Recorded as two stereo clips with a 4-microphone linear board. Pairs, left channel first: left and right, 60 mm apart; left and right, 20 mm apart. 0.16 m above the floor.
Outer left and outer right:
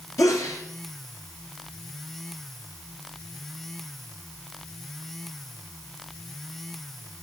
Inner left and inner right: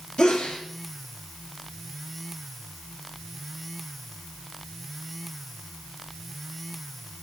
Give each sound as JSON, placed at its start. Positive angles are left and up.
{"t": 0.2, "sound": "a sneeze", "side_deg": 60, "distance_m": 2.5}